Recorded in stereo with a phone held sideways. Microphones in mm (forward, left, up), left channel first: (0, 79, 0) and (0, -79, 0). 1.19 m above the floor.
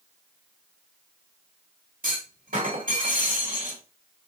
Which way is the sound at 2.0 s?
75° right (ahead or behind).